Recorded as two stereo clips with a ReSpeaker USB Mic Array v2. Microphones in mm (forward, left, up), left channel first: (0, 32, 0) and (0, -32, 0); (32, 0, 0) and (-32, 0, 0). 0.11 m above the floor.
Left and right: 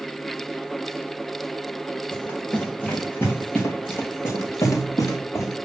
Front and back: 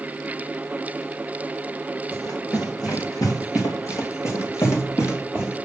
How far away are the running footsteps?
About 4 m.